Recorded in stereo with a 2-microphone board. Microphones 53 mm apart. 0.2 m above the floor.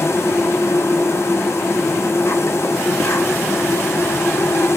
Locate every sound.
0.0 s an insect: 60° left (ahead or behind), 1.1 m